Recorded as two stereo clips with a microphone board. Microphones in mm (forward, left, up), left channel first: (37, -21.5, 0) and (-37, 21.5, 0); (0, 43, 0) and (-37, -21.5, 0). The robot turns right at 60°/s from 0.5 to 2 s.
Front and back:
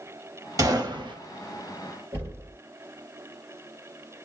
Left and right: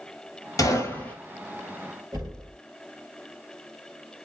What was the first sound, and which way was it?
A gunshot, 100° left.